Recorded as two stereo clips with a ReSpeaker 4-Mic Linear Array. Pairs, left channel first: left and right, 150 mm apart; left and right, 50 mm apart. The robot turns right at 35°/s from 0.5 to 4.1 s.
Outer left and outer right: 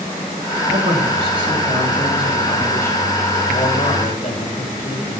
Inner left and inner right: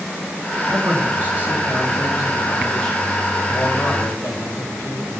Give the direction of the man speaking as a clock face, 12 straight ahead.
2 o'clock.